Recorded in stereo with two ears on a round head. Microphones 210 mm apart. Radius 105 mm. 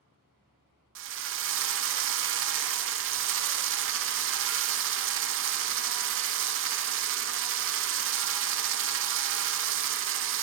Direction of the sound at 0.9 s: 55° right (ahead or behind).